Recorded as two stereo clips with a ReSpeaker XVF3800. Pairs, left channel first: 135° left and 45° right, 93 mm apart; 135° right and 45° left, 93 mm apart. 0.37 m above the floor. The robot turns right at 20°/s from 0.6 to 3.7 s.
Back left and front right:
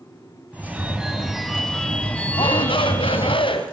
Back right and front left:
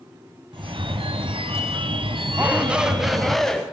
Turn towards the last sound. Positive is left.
turn(degrees=145)